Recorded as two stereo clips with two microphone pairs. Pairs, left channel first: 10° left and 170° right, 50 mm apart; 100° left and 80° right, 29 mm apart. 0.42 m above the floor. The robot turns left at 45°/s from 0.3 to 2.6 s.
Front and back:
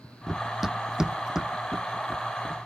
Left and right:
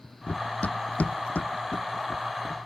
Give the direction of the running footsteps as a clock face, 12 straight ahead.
9 o'clock.